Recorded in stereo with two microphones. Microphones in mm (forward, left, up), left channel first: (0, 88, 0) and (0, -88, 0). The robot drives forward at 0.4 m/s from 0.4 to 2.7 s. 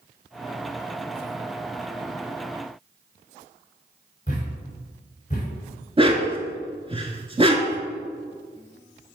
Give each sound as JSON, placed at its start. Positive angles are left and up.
{"t": 4.3, "sound": "a thud", "side_deg": 40, "distance_m": 3.0}
{"t": 6.0, "sound": "a dog barking", "side_deg": -30, "distance_m": 0.8}